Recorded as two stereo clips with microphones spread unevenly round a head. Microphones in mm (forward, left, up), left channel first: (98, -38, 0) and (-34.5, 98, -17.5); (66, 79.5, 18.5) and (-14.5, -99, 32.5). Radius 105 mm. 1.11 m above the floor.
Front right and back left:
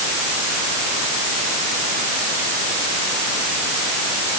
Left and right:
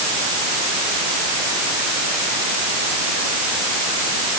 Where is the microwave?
No microwave in this recording.